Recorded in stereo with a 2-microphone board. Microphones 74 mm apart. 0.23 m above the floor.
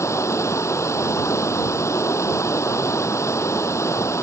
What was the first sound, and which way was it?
Running water, 40° left (ahead or behind).